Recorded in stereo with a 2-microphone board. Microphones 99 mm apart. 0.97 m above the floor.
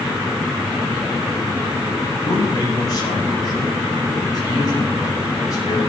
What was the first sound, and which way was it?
A man speaking, 40° left (ahead or behind).